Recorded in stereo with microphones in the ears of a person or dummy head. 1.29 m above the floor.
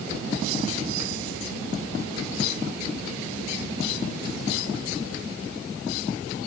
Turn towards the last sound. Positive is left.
No sound to turn to.